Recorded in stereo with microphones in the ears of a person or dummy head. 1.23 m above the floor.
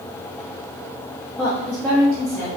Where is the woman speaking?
Centre (ahead or behind), 0.7 m.